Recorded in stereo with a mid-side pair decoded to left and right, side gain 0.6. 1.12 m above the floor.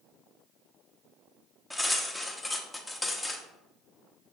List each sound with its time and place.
1.7 s cutlery clinking: 5° left, 0.9 m